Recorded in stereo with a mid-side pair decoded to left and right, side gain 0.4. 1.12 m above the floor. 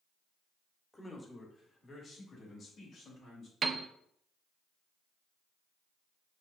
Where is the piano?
50° right, 0.5 m.